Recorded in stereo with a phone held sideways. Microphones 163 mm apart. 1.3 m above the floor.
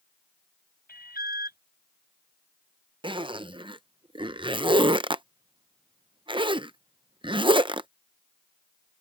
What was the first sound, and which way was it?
An alarm, 70° left (ahead or behind).